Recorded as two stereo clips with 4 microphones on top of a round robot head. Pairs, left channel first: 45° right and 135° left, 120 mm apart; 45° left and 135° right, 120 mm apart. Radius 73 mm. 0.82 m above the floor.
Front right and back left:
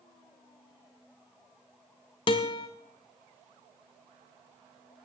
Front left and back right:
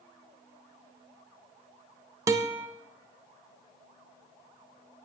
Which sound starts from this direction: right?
A guitar, at 2.3 s.